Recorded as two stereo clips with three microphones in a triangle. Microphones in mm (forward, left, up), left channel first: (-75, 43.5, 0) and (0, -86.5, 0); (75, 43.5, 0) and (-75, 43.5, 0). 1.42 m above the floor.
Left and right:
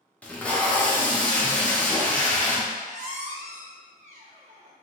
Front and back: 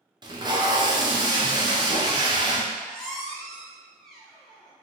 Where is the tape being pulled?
165° right, 0.6 m.